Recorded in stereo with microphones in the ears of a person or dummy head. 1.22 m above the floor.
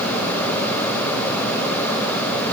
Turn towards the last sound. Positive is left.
No sound to turn to.